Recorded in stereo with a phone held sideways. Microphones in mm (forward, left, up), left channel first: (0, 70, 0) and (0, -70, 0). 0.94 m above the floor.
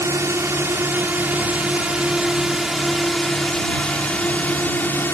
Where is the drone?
20° right (ahead or behind); by 5.1 s 15° left (ahead or behind).